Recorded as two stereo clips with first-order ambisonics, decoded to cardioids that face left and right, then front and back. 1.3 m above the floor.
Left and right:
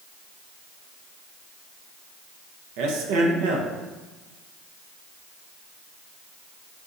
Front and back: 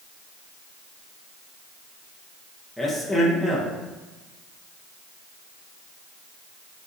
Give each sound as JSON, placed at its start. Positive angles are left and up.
{"t": 2.8, "sound": "a man speaking", "azimuth_deg": -95, "distance_m": 0.7}